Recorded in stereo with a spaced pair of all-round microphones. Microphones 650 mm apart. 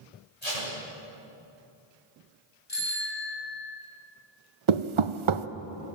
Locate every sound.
0.4 s tape being pulled: 75° left (ahead or behind), 9.5 m
2.7 s a bicycle bell: 75° left (ahead or behind), 5.5 m
4.7 s knocking: 50° right (ahead or behind), 0.7 m